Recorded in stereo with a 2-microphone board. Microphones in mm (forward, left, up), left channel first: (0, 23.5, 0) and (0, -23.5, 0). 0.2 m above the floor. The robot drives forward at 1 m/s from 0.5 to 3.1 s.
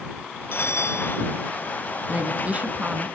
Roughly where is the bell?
Left.